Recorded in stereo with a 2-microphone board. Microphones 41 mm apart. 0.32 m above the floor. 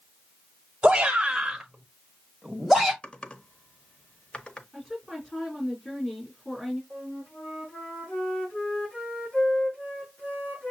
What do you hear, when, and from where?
0.8 s a shout: 20° right (ahead or behind), 1.3 m; by 2.9 s 5° left (ahead or behind), 2 m
3.0 s typing on a keyboard: 30° left (ahead or behind), 0.8 m
4.7 s a woman speaking: 15° left (ahead or behind), 3 m
6.9 s a flute: 30° left (ahead or behind), 4 m